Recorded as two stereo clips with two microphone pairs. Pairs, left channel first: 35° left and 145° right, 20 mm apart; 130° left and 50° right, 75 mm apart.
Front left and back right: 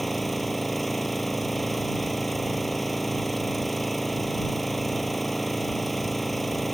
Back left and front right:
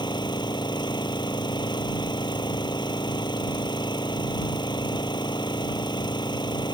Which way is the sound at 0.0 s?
125° left.